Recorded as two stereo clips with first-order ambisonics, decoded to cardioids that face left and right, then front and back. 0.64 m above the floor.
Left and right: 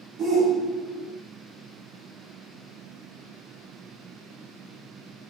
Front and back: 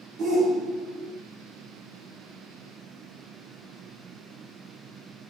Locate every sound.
0.2 s a shout: 150° right, 1.3 m